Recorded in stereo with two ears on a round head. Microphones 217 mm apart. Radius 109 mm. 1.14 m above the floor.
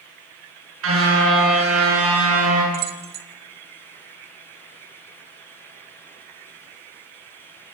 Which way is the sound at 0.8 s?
60° right (ahead or behind).